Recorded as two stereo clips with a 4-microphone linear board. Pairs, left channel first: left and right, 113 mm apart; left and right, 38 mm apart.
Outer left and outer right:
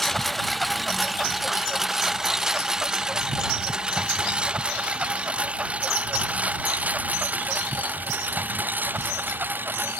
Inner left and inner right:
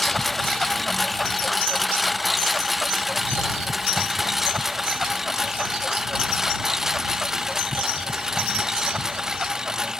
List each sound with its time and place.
0.0 s a lawn mower: centre (ahead or behind); by 10.0 s 15° right (ahead or behind)